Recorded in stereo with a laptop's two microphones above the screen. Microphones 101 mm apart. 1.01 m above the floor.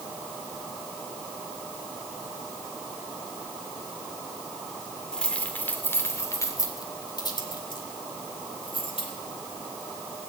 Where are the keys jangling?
5° left (ahead or behind), 2 m; by 9.1 s 65° left (ahead or behind), 4 m.